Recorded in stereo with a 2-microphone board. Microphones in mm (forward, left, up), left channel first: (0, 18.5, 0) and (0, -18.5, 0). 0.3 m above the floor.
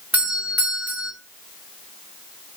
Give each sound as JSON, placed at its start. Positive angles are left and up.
{"t": 0.1, "sound": "a doorbell", "side_deg": -40, "distance_m": 1.8}